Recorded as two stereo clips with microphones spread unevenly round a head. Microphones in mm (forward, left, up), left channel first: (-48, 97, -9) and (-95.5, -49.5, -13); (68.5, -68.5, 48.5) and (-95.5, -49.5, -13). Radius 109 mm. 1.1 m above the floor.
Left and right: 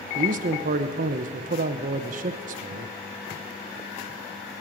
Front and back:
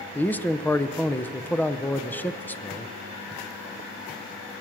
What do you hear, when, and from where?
0.1 s a man speaking: 100° right, 0.9 m